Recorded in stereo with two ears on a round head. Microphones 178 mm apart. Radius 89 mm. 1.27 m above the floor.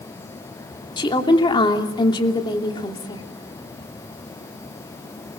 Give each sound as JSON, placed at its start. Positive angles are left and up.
{"t": 1.0, "sound": "a woman speaking", "side_deg": 25, "distance_m": 2.5}